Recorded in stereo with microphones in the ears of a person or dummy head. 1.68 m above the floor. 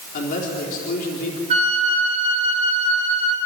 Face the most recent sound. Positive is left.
turn(degrees=-40)  # may be behind; listen again after turning